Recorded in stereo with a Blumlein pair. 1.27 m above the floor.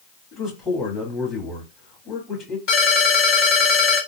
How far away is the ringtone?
About 2.5 m.